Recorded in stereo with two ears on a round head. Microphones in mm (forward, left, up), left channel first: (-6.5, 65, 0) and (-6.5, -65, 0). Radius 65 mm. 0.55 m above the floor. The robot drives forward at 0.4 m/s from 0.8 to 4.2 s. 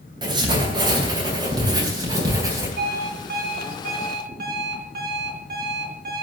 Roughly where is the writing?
Right.